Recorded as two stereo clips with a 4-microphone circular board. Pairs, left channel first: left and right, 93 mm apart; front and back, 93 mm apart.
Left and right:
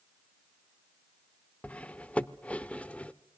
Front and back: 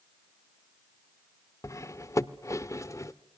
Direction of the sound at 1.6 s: 25° left.